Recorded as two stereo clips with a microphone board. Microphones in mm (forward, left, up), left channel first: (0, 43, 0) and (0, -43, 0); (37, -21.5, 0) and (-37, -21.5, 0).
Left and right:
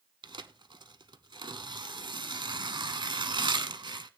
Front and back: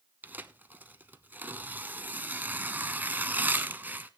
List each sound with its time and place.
0.2 s tearing paper: 115° right, 0.8 m